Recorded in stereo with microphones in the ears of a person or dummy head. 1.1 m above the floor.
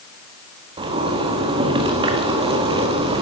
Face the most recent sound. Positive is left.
turn(degrees=-35)  # may be behind; listen again after turning